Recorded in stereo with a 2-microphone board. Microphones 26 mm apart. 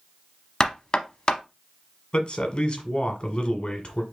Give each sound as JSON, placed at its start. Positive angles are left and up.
{"t": 0.6, "sound": "knocking", "side_deg": 30, "distance_m": 0.7}
{"t": 2.1, "sound": "a man speaking", "side_deg": 40, "distance_m": 1.3}